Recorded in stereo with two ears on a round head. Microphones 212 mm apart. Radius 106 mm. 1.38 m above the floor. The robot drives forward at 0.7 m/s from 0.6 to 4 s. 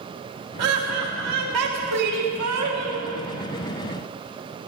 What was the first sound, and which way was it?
Laughter, 80° right.